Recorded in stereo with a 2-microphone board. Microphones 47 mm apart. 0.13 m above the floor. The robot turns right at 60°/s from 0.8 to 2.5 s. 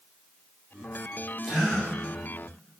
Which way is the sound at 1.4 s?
5° right (ahead or behind).